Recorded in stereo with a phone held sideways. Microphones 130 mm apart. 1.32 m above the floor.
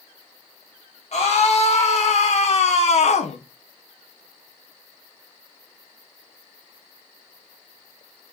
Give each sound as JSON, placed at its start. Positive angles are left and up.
{"t": 1.1, "sound": "a scream", "side_deg": 55, "distance_m": 2.0}